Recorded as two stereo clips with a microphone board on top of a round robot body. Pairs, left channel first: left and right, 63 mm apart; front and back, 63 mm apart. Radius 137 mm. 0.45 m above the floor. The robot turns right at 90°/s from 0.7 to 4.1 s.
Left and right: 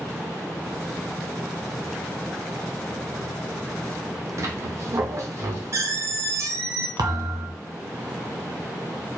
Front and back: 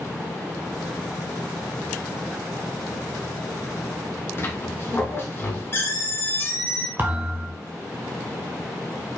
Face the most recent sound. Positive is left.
turn(degrees=-120)